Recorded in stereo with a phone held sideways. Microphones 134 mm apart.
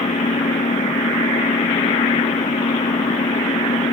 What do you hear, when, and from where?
0.0 s an engine running: 65° left (ahead or behind)